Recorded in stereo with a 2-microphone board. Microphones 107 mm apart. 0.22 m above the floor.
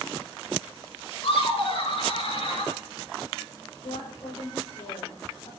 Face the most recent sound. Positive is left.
turn(degrees=80)